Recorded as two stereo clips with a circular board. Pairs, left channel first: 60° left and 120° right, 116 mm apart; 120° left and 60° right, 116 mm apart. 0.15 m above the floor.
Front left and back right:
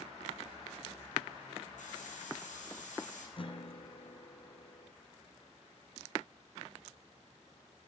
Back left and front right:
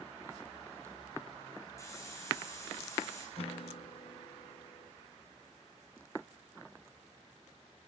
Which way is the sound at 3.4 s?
95° left.